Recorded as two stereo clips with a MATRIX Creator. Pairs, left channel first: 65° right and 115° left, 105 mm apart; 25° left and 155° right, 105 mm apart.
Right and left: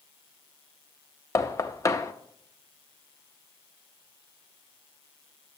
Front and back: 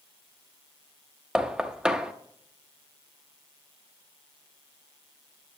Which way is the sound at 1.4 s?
85° right.